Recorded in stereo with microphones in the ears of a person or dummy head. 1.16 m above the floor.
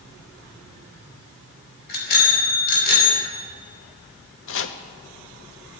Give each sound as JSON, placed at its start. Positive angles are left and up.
{"t": 1.9, "sound": "a bicycle bell", "side_deg": 55, "distance_m": 4.5}
{"t": 4.5, "sound": "chopping", "side_deg": 65, "distance_m": 0.8}